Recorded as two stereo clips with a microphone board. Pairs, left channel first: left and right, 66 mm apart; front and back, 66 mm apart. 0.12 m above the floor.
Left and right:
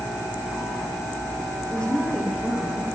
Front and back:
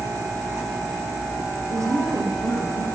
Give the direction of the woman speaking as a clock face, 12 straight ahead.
6 o'clock.